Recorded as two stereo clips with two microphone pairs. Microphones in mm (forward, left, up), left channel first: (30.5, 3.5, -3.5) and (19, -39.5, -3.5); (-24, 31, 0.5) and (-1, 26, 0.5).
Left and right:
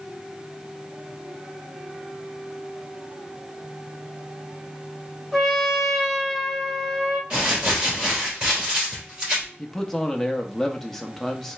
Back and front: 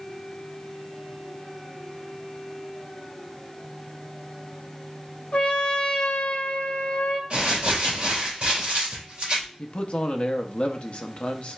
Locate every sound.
5.3 s a trumpet: 165° left, 0.8 m
7.3 s crumpling: 50° right, 2.5 m
9.6 s a man speaking: 155° left, 0.7 m